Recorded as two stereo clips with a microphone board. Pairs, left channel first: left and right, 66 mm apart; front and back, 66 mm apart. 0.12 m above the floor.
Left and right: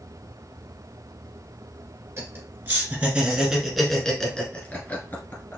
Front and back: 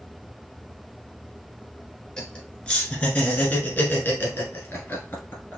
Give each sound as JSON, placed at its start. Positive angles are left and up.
{"t": 2.2, "sound": "laughter", "azimuth_deg": -70, "distance_m": 1.7}